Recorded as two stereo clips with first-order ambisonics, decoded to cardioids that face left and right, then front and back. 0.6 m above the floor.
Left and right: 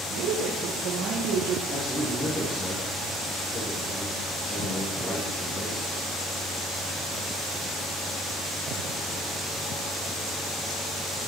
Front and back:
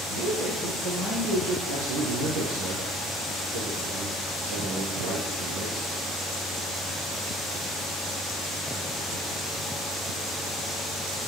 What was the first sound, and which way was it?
A woman speaking, 125° right.